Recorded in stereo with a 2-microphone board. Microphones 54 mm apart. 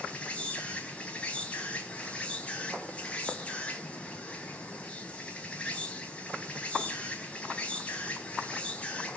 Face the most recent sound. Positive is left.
turn(degrees=20)  # may be behind; listen again after turning